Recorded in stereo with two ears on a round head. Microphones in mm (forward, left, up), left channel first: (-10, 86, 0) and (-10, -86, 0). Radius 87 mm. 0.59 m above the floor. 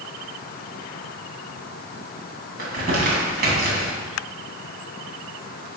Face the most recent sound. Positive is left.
turn(degrees=-50)  # may be behind; listen again after turning